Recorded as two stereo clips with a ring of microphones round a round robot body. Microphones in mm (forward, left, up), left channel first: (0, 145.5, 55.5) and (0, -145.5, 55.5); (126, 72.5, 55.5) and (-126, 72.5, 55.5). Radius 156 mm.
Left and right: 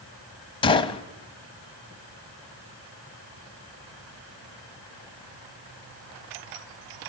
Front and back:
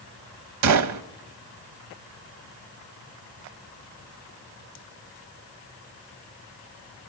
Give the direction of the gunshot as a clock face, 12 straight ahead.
7 o'clock.